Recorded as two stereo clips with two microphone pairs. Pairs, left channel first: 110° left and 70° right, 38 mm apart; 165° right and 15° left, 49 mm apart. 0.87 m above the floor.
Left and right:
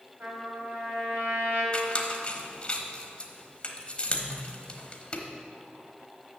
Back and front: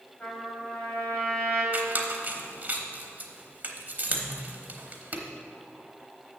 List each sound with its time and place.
0.2 s a trumpet: 105° right, 2.5 m
1.7 s a squeak: 55° left, 0.9 m